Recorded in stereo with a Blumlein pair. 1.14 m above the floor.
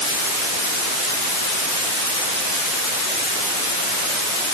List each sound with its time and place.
Only background noise.